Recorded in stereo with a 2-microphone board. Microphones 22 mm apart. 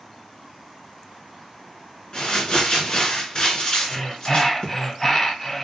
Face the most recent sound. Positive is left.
turn(degrees=15)  # may be behind; listen again after turning